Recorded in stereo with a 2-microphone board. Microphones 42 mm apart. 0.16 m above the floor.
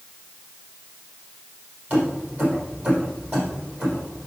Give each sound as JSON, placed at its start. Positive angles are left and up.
{"t": 1.9, "sound": "keys jangling", "side_deg": -40, "distance_m": 5.0}